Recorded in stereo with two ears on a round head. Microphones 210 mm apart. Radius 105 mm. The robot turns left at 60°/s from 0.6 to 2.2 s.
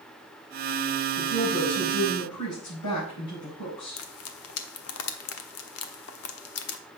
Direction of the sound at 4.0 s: 65° left (ahead or behind).